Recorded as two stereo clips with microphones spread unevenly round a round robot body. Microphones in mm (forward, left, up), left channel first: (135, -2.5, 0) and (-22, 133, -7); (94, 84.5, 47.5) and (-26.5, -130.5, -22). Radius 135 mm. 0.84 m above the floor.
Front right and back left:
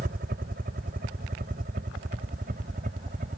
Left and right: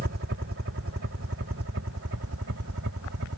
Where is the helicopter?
165° right; by 3.4 s 160° right.